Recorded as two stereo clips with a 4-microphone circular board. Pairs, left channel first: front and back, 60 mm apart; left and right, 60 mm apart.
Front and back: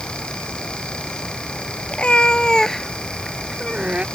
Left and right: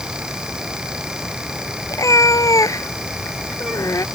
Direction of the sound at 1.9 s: 70° left.